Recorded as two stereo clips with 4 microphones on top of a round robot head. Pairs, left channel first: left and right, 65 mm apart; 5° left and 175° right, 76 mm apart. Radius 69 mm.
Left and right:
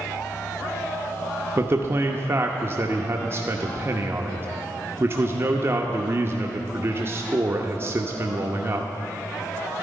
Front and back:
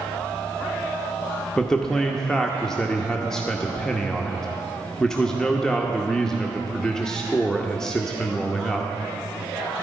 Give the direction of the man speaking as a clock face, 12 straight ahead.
2 o'clock.